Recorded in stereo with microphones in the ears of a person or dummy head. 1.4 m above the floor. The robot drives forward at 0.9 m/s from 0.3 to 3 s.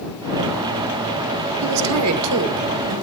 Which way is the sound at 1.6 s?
80° right.